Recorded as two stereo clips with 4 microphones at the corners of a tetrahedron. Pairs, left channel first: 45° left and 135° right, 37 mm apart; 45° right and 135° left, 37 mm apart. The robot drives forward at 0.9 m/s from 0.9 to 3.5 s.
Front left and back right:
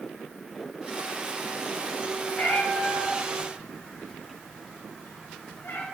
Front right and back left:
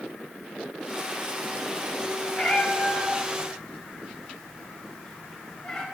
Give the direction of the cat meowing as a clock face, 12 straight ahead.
12 o'clock.